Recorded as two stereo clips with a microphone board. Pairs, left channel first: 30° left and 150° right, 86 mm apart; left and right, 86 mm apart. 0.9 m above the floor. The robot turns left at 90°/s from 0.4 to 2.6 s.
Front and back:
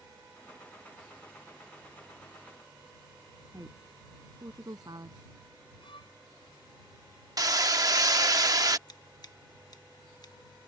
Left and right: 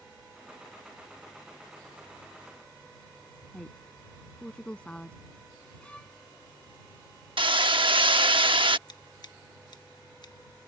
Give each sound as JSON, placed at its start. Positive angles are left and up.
{"t": 3.5, "sound": "a woman speaking", "azimuth_deg": 165}
{"t": 5.8, "sound": "a violin", "azimuth_deg": 10}
{"t": 7.4, "sound": "hammering", "azimuth_deg": -105}
{"t": 8.9, "sound": "scissors", "azimuth_deg": 60}